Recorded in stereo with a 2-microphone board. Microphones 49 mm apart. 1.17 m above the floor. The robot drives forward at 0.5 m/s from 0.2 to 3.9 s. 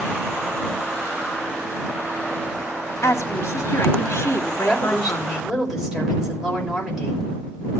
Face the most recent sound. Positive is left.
turn(degrees=-5)  # may be behind; listen again after turning